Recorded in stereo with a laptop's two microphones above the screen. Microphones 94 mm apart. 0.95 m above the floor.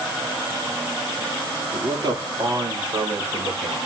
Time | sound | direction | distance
1.7 | a man speaking | 60° right (ahead or behind) | 2 m